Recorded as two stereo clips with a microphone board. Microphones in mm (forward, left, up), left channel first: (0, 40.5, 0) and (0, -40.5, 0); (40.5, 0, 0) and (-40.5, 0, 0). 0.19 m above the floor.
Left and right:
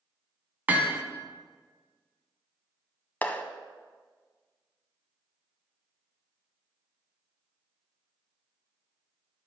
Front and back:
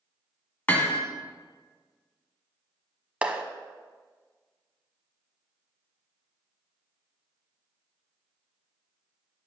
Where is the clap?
125° left, 0.8 m.